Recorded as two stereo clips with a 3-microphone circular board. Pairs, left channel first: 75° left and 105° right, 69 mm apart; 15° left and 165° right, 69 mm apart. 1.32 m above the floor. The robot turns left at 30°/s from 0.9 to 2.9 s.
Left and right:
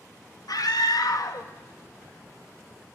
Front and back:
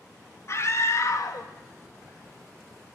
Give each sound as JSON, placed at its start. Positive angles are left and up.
{"t": 0.5, "sound": "a scream", "azimuth_deg": 60, "distance_m": 1.6}